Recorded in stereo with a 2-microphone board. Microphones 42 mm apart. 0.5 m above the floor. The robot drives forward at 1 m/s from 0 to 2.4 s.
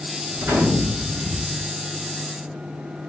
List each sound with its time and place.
0.3 s a gunshot: 85° right, 4.5 m; by 1.6 s 70° right (ahead or behind), 5 m